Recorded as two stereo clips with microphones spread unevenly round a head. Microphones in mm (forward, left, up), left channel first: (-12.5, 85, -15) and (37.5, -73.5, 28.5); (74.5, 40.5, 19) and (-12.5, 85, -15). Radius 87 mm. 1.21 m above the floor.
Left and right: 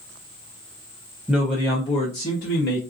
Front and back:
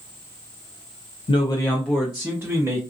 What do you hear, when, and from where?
1.3 s a man speaking: 15° left, 0.6 m; by 2.8 s 100° left, 1.1 m